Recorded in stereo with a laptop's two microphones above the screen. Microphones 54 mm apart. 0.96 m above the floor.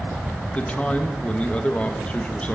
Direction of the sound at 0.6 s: 25° left (ahead or behind).